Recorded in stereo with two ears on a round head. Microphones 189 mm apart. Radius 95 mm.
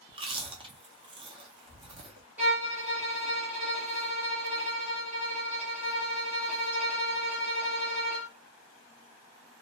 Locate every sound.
0.1 s chewing: 25° right (ahead or behind), 0.7 m
2.4 s a violin: 10° right (ahead or behind), 1.2 m